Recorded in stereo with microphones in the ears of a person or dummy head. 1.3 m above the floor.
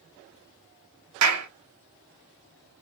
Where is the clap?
80° right, 0.6 m.